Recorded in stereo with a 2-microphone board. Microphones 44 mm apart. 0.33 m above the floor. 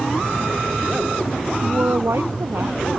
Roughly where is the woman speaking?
Right.